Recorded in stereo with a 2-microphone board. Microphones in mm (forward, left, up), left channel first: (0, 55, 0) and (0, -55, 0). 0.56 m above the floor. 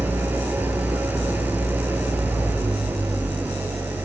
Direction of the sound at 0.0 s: 15° right (ahead or behind).